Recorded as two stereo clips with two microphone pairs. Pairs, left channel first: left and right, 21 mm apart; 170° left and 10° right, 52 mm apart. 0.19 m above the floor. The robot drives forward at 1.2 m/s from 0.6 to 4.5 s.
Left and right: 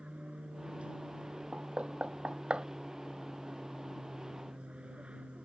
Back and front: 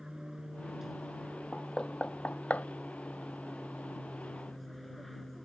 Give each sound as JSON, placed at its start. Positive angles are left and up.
{"t": 0.0, "sound": "an aircraft", "azimuth_deg": -90}
{"t": 1.5, "sound": "knocking", "azimuth_deg": -115}